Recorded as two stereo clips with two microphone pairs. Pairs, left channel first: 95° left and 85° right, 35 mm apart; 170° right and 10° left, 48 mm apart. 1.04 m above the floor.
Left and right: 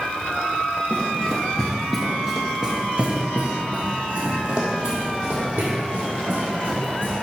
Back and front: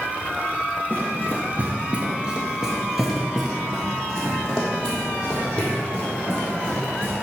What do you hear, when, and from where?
0.9 s running footsteps: 45° left, 1.4 m; by 7.1 s 105° right, 3.5 m